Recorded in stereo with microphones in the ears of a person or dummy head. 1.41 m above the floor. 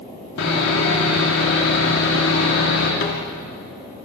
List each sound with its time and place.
0.4 s sawing: 70° left (ahead or behind), 4 m
3.0 s a snare drum: 55° left (ahead or behind), 2.5 m